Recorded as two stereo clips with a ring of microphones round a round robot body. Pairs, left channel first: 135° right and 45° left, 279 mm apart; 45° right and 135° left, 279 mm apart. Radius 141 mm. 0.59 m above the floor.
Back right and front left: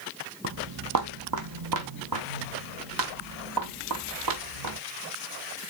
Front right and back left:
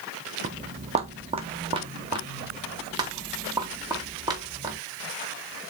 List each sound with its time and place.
0.4 s footsteps: 80° left, 0.8 m; by 4.8 s 60° left, 4 m